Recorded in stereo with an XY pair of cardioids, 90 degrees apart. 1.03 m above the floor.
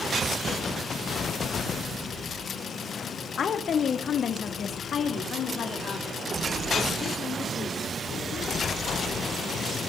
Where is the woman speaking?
60° left, 1.9 m; by 8.8 s 65° left, 5 m.